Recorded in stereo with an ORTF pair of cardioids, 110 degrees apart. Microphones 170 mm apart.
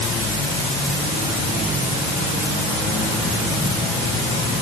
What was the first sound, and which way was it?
Only background noise.